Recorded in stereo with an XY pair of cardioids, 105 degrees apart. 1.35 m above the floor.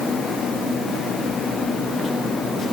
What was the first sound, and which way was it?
Only background noise.